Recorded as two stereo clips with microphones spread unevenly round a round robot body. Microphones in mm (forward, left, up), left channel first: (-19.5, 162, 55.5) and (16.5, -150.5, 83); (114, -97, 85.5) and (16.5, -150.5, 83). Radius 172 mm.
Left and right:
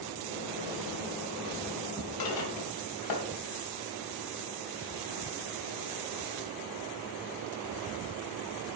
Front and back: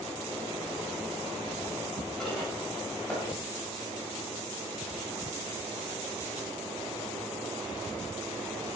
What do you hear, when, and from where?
2.2 s dishes clattering: 115° left, 3 m